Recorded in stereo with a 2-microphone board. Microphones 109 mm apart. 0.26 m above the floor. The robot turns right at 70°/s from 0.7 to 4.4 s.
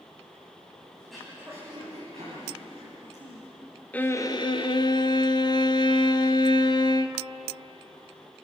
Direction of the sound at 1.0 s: 170° left.